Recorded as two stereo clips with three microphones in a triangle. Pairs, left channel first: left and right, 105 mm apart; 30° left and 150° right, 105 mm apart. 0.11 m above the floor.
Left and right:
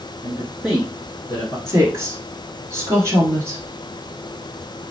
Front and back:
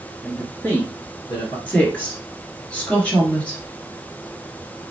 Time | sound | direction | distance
0.2 | a man speaking | 60° right | 1.5 m
1.7 | a woman speaking | 40° right | 1.7 m